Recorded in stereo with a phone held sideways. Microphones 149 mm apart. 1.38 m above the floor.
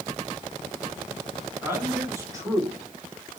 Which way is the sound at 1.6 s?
15° right (ahead or behind).